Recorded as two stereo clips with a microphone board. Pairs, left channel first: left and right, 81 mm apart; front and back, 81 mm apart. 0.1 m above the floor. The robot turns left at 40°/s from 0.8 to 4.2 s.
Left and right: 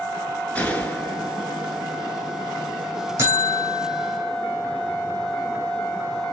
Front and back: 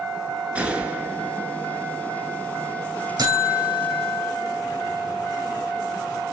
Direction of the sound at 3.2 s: 145° right.